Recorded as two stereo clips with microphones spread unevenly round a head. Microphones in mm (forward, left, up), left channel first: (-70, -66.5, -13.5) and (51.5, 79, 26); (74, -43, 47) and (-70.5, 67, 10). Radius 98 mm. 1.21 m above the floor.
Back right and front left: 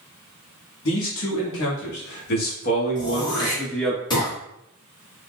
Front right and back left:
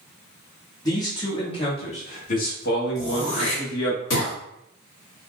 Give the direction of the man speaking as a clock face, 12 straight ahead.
4 o'clock.